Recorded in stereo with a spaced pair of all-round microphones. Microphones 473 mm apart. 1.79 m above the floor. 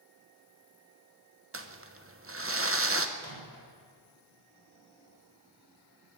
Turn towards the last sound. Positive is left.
turn(degrees=-55)  # may be behind; listen again after turning